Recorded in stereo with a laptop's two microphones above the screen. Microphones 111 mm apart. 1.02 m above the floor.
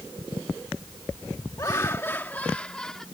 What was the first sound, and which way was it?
Laughter, 35° left (ahead or behind).